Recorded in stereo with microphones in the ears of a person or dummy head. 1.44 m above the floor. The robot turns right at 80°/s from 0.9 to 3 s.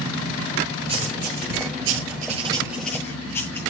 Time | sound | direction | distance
0.9 | writing | 30° right (ahead or behind) | 9 m